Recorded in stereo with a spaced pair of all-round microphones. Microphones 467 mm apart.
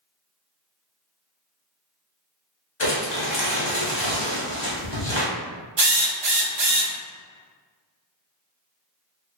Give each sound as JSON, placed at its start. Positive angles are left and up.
{"t": 2.8, "sound": "crumpling", "side_deg": 60, "distance_m": 0.9}
{"t": 5.8, "sound": "a drill", "side_deg": -60, "distance_m": 0.5}